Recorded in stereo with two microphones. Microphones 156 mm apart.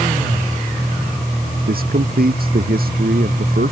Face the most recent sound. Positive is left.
turn(degrees=-70)  # may be behind; listen again after turning